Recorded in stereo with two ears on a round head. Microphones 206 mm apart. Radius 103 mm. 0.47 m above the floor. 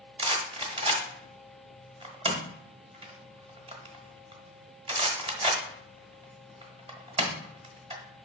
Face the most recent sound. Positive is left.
turn(degrees=-25)  # may be behind; listen again after turning